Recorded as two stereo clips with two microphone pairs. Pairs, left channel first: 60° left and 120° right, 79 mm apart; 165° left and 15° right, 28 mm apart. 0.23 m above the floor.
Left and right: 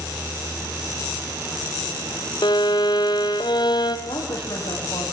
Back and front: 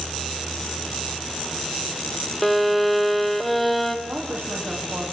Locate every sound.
2.4 s a violin: 80° left, 1.8 m
4.1 s a woman speaking: 35° left, 10 m